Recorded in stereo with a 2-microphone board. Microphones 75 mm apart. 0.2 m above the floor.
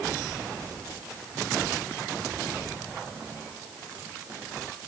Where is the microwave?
I don't hear a microwave.